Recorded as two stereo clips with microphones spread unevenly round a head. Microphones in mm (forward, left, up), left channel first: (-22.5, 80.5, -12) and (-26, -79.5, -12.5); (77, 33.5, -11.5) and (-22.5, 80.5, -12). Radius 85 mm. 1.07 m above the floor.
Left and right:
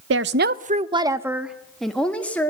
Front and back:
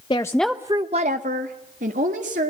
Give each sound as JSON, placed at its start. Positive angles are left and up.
{"t": 0.1, "sound": "a woman speaking", "azimuth_deg": -90, "distance_m": 0.8}